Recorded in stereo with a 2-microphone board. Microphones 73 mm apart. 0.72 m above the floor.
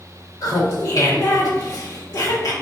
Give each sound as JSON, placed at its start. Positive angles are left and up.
{"t": 0.4, "sound": "laughter", "side_deg": 55, "distance_m": 1.2}